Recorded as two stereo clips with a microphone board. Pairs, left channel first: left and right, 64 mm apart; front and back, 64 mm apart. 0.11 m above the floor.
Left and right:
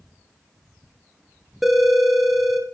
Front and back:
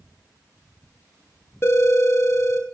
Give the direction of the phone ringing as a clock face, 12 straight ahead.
12 o'clock.